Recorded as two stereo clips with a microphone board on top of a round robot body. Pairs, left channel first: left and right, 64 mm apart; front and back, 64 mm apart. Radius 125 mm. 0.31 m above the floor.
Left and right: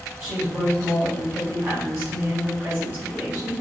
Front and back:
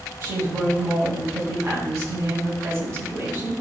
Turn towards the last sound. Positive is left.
turn(degrees=-145)